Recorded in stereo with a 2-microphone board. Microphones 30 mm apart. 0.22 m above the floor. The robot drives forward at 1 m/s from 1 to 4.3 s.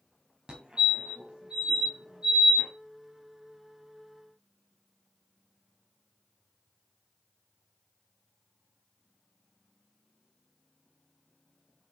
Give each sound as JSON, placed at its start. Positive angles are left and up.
{"t": 0.5, "sound": "a fire alarm", "side_deg": -30, "distance_m": 2.0}